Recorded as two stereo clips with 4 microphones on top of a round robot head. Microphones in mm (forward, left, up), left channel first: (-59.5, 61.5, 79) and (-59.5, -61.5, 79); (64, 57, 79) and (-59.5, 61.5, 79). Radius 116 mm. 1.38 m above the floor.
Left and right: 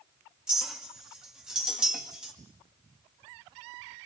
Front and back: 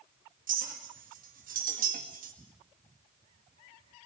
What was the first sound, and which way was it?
A clink, 175° right.